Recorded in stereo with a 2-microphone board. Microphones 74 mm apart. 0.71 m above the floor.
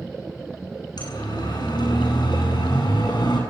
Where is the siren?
70° left (ahead or behind), 8.5 m; by 3.4 s 80° left, 7.5 m.